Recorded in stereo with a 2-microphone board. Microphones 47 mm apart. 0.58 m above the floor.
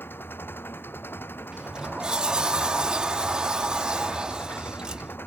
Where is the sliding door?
15° right (ahead or behind).